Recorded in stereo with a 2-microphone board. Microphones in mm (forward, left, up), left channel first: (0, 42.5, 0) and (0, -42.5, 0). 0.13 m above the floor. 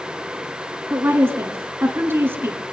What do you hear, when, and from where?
0.9 s a woman speaking: 25° right (ahead or behind), 1.6 m